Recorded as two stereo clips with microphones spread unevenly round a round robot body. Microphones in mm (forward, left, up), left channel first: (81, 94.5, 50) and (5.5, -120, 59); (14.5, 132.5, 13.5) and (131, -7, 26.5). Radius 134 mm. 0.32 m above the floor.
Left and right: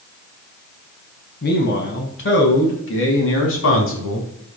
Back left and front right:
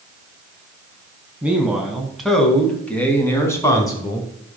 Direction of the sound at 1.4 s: 35° left.